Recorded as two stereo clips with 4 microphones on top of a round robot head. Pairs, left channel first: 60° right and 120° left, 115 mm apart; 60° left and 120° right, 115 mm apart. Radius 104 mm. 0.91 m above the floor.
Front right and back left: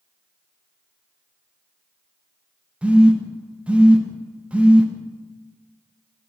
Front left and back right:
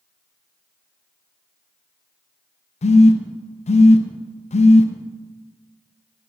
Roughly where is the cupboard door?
No cupboard door in this recording.